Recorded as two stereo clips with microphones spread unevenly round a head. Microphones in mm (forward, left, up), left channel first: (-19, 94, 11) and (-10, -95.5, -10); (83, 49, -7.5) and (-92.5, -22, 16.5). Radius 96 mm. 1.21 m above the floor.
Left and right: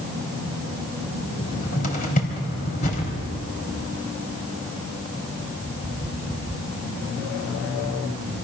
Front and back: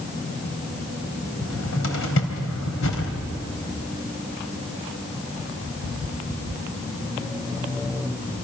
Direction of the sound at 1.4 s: 45° left.